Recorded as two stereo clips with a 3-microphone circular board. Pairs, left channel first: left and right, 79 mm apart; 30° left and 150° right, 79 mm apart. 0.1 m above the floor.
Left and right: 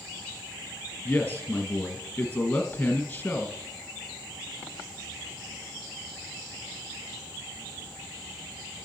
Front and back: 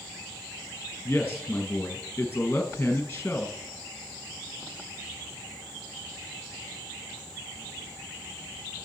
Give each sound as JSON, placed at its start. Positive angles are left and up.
{"t": 1.1, "sound": "a man speaking", "azimuth_deg": 45, "distance_m": 1.2}